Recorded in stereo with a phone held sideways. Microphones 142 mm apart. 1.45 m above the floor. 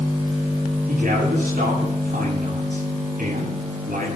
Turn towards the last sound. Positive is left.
turn(degrees=-90)